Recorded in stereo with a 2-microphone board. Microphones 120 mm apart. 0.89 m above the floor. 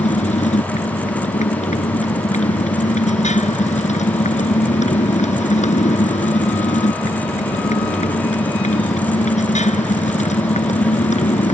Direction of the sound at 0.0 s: 80° left.